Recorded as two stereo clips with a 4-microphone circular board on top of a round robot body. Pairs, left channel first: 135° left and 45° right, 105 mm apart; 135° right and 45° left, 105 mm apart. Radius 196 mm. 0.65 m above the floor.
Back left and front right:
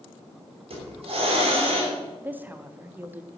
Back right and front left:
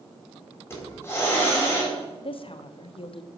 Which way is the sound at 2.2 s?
115° right.